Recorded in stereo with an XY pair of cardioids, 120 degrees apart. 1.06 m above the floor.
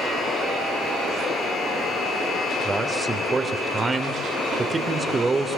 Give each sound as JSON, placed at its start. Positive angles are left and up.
{"t": 2.6, "sound": "a man speaking", "azimuth_deg": -20, "distance_m": 3.0}